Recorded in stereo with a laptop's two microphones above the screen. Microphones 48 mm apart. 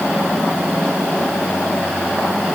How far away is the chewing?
No chewing in this recording.